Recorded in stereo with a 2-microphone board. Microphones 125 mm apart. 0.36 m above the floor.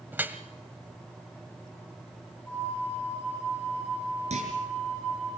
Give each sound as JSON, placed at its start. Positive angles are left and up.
{"t": 0.1, "sound": "dripping", "side_deg": -15, "distance_m": 1.1}
{"t": 2.5, "sound": "a flute", "side_deg": 15, "distance_m": 7.5}
{"t": 4.3, "sound": "a clunk", "side_deg": -70, "distance_m": 4.0}